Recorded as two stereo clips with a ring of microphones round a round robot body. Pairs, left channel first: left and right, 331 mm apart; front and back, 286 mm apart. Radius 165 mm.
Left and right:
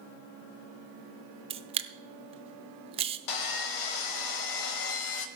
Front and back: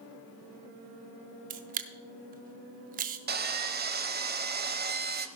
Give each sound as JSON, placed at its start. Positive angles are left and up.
{"t": 1.5, "sound": "a camera shutter", "azimuth_deg": -150, "distance_m": 0.5}
{"t": 3.3, "sound": "sawing", "azimuth_deg": 120, "distance_m": 1.1}